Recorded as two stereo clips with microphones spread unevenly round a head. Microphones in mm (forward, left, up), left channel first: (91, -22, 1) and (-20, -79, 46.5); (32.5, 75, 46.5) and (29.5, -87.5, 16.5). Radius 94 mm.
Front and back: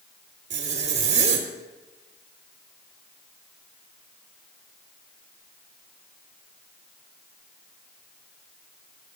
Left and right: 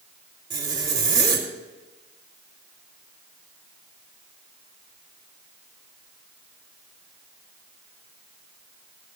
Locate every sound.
0.5 s a zipper: 165° right, 2 m